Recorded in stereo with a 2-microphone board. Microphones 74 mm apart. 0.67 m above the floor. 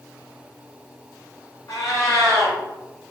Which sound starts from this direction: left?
A cat meowing, at 1.7 s.